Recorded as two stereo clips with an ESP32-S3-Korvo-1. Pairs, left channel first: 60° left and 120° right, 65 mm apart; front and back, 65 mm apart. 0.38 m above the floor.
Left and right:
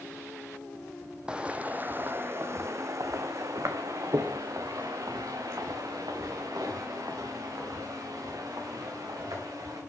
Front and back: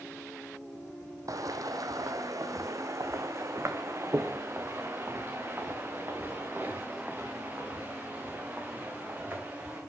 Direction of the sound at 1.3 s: 165° left.